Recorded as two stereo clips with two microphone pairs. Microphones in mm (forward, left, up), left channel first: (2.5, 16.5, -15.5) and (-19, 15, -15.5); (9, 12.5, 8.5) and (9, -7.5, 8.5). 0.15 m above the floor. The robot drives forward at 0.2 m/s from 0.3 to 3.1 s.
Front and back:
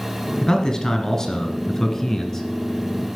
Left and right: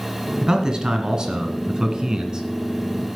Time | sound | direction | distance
0.4 | a man speaking | 50° right | 2 m